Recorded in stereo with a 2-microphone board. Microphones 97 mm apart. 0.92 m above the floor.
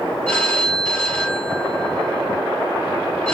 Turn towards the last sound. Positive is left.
turn(degrees=10)  # may be behind; listen again after turning